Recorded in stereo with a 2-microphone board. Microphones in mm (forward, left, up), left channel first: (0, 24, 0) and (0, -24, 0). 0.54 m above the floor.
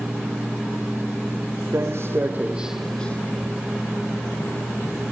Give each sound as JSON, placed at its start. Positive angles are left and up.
{"t": 1.7, "sound": "footsteps", "side_deg": -65, "distance_m": 1.5}